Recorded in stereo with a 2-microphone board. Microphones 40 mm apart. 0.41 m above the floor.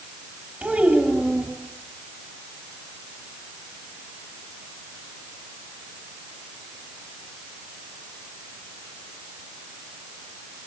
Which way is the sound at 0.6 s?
40° right (ahead or behind).